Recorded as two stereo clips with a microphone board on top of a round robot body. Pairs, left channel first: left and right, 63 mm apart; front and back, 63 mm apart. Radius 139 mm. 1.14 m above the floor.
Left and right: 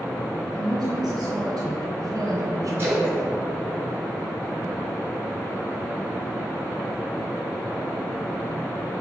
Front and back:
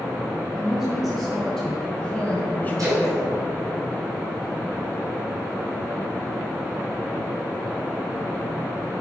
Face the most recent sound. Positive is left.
turn(degrees=-145)